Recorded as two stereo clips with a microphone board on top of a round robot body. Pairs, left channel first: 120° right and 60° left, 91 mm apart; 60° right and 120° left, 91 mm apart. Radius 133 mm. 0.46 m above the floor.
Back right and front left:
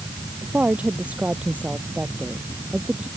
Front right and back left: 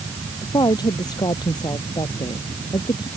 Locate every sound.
0.4 s a woman speaking: 15° right